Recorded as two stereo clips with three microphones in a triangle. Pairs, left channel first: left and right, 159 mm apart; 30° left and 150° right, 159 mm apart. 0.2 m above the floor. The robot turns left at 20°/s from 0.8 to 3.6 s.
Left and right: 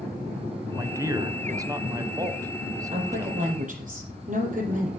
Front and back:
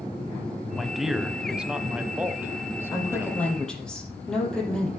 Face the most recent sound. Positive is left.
turn(degrees=-55)